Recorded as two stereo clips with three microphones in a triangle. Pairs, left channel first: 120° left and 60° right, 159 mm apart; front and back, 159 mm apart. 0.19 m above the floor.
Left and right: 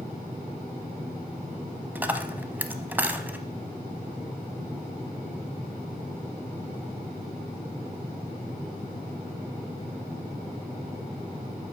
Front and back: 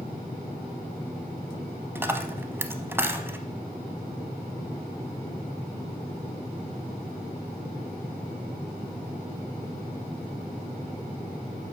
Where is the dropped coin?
125° right, 0.5 m.